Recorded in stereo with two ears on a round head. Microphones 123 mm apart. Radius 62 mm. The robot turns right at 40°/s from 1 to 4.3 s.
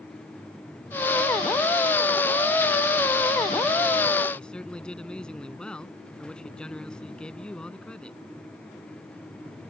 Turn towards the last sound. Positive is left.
turn(degrees=5)  # may be behind; listen again after turning